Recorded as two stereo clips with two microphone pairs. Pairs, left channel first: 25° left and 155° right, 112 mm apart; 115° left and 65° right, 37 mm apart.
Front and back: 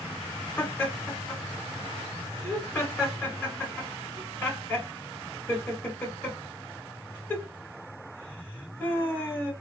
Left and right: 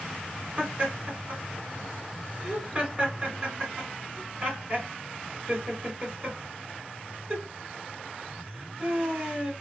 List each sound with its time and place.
0.6 s laughter: 30° right, 2.0 m